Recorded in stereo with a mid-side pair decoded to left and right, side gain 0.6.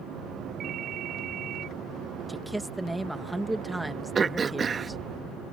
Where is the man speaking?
10° right.